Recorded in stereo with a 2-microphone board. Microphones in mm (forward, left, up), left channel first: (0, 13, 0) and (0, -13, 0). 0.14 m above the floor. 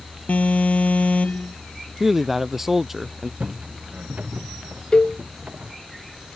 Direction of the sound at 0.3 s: 70° left (ahead or behind).